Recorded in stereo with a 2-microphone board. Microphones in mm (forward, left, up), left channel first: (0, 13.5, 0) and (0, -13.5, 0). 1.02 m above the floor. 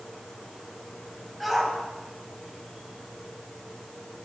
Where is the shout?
5° left (ahead or behind), 8 m.